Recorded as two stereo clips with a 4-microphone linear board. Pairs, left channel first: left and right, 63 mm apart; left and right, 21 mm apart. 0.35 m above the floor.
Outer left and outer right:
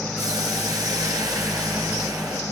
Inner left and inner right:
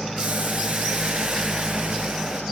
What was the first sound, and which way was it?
Boiling, 70° right (ahead or behind).